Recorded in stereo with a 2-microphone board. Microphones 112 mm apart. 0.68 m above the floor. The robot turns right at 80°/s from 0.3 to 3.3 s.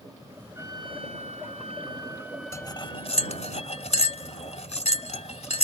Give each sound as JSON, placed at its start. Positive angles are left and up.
{"t": 0.6, "sound": "a trumpet", "azimuth_deg": -155}
{"t": 2.5, "sound": "cutlery clinking", "side_deg": 25}